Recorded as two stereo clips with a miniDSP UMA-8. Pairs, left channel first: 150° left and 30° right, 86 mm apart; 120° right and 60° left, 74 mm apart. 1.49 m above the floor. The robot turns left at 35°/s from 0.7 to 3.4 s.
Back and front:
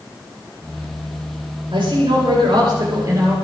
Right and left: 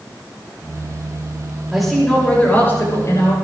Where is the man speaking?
25° right, 7.5 m; by 3.3 s 85° right, 7.5 m.